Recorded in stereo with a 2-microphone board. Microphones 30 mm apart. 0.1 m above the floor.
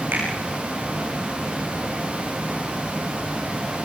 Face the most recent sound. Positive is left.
turn(degrees=-75)  # may be behind; listen again after turning